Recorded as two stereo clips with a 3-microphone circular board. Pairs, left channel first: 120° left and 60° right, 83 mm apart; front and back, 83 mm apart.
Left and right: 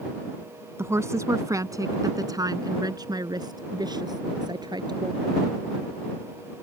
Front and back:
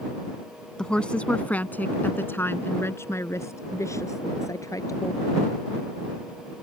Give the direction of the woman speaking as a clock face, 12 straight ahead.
3 o'clock.